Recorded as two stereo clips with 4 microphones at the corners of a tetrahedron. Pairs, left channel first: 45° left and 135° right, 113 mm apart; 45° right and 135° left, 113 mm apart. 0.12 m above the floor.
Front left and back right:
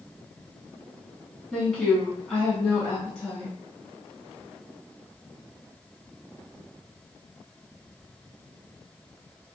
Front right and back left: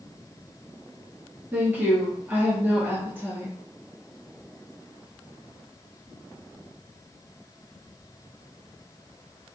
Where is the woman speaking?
115° left, 1.1 m.